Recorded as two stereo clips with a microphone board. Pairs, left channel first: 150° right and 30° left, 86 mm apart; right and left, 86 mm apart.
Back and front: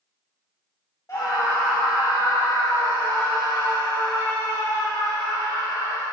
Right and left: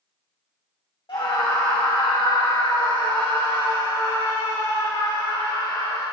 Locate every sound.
1.1 s a scream: 100° right, 2 m; by 6.0 s 95° right, 9 m